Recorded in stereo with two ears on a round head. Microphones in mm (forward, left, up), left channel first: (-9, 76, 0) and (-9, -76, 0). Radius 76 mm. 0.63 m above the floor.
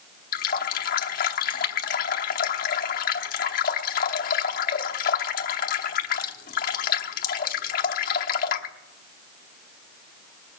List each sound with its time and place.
0.3 s a running tap: 50° left (ahead or behind), 0.8 m